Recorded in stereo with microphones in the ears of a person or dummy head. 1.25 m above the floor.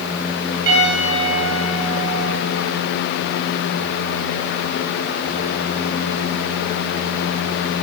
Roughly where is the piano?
Right.